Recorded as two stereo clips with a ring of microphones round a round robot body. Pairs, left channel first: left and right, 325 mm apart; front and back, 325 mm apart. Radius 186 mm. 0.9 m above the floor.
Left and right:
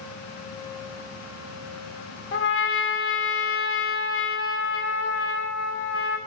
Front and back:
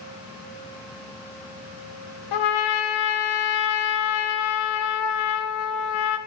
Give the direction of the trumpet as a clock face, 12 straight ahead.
11 o'clock.